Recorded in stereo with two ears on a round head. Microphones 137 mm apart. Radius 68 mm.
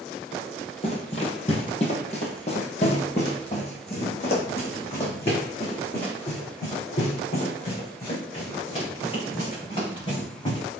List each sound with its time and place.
0.8 s running footsteps: 40° left (ahead or behind), 2 m